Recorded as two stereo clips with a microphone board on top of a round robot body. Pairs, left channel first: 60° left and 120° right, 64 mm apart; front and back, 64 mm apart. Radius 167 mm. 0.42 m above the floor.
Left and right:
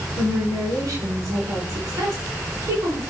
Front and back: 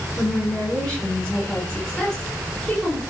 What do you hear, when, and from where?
0.2 s a woman speaking: 80° right, 8 m